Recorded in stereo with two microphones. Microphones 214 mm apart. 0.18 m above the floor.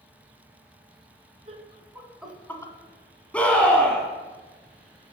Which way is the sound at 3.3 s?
5° left (ahead or behind).